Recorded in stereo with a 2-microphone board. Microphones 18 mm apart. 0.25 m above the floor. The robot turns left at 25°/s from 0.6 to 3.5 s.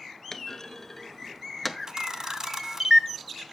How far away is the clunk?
About 0.7 m.